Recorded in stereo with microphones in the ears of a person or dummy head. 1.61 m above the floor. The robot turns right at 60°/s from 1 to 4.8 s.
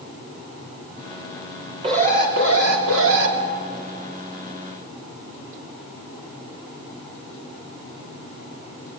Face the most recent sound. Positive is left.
turn(degrees=30)